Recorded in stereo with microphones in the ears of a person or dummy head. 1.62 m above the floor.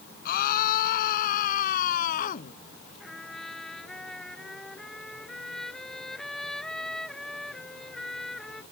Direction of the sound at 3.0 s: Centre (ahead or behind).